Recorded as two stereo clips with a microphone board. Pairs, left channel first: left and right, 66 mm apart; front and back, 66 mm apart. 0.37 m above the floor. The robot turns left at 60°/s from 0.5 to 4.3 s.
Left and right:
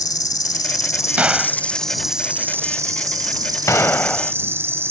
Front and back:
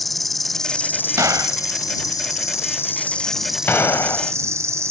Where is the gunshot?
155° right; by 4.3 s 15° left.